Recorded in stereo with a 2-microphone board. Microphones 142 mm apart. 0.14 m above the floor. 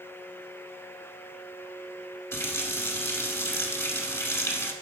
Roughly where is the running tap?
Centre.